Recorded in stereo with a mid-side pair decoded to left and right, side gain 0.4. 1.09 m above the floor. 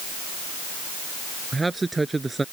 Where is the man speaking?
20° right.